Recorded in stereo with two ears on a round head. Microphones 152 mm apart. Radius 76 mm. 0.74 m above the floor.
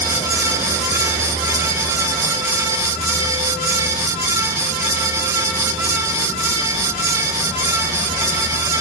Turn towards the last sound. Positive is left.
No sound to turn to.